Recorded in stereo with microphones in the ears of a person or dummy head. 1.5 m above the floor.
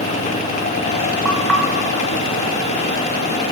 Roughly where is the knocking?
Centre.